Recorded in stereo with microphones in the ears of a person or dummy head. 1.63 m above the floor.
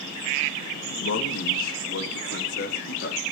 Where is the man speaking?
80° left, 2.5 m; by 3.2 s 65° left (ahead or behind), 4 m.